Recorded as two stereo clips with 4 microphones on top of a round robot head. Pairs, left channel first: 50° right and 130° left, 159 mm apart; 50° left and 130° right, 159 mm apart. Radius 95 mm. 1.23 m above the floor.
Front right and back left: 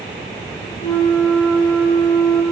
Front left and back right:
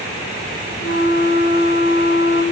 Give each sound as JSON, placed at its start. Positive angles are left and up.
{"t": 0.8, "sound": "a flute", "azimuth_deg": 15, "distance_m": 1.1}